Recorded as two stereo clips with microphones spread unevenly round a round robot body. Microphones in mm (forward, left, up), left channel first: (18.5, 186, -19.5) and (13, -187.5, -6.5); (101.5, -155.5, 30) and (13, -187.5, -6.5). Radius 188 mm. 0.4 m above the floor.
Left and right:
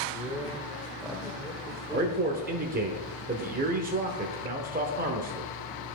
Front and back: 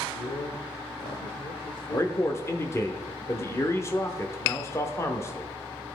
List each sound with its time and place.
0.1 s a man speaking: straight ahead, 1.1 m
1.9 s a man speaking: 55° right, 0.8 m